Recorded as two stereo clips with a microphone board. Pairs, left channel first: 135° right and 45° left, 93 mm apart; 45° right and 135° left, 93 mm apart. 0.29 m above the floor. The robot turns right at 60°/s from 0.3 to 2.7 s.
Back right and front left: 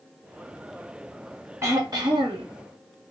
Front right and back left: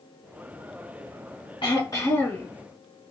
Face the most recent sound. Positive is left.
turn(degrees=50)